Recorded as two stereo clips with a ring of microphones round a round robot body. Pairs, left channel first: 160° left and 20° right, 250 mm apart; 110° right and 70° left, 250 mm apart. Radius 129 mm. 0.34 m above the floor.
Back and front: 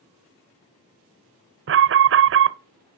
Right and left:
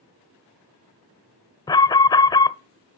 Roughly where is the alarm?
Ahead right.